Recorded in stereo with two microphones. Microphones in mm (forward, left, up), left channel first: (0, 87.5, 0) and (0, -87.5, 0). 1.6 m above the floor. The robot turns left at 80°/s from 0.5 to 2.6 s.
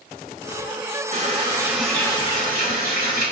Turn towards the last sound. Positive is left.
turn(degrees=120)